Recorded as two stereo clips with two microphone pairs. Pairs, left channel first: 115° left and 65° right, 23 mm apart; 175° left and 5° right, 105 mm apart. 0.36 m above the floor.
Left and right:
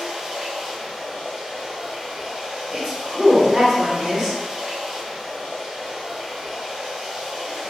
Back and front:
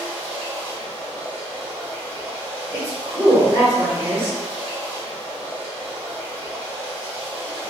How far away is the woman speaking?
About 1.1 m.